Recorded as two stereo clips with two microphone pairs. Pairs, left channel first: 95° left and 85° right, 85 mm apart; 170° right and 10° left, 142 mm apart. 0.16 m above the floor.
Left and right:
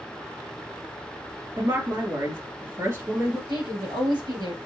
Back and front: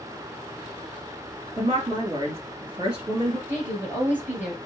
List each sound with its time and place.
1.6 s a woman speaking: 35° right, 2.5 m
3.5 s a woman speaking: 65° right, 3 m